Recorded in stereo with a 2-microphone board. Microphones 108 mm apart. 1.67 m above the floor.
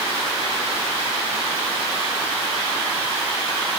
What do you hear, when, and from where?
Only background noise.